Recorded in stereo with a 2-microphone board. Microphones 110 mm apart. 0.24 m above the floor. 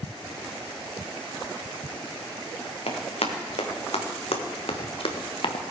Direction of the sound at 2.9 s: 85° left.